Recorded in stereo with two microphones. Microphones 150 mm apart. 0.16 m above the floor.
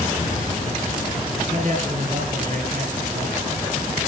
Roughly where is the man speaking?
Right.